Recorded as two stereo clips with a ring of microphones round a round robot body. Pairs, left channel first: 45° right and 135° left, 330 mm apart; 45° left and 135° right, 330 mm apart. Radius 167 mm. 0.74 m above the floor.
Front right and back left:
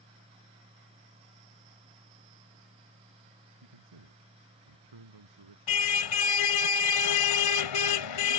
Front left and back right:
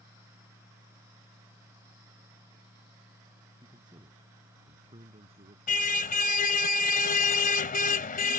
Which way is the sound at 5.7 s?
20° right.